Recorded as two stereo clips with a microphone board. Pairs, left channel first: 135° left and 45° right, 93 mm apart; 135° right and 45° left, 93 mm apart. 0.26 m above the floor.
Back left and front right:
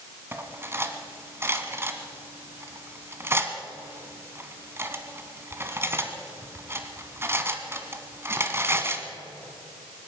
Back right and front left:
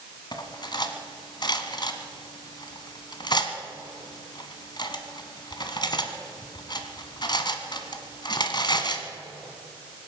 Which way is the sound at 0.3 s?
105° right.